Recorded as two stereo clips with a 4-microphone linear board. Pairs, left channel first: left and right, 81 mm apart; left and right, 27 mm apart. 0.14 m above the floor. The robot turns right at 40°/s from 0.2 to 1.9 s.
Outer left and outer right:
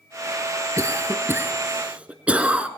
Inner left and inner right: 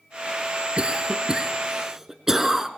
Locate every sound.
0.8 s a cough: 35° right (ahead or behind), 1.6 m; by 2.7 s 15° right (ahead or behind), 1.6 m